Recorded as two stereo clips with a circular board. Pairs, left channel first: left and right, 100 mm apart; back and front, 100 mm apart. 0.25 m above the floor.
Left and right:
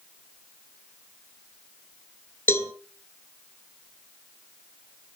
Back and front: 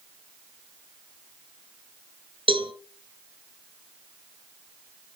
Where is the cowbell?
25° left, 2 m.